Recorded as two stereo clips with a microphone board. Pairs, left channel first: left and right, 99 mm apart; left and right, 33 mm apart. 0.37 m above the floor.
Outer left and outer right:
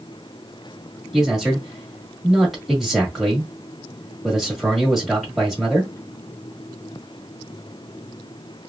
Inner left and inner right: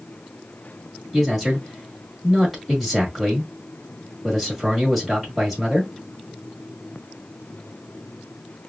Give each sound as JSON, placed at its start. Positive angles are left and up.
{"t": 1.1, "sound": "a man speaking", "side_deg": -5, "distance_m": 1.6}